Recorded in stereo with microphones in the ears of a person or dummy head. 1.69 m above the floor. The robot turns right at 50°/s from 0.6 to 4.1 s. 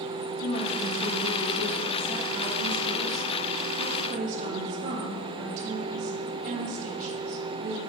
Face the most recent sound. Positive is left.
turn(degrees=-40)